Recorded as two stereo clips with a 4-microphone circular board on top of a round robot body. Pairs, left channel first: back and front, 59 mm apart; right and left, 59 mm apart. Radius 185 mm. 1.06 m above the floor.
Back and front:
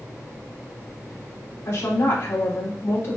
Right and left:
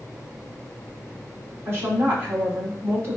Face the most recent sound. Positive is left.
turn(degrees=140)